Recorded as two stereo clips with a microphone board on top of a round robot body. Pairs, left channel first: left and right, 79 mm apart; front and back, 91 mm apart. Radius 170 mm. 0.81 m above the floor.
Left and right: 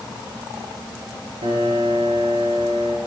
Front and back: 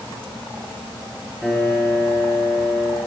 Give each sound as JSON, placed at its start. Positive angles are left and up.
{"t": 1.4, "sound": "a piano", "azimuth_deg": -90, "distance_m": 5.5}